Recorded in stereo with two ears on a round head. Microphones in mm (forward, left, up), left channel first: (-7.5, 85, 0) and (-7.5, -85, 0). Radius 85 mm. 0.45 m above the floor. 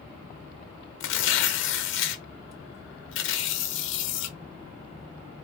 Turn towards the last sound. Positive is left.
turn(degrees=70)  # may be behind; listen again after turning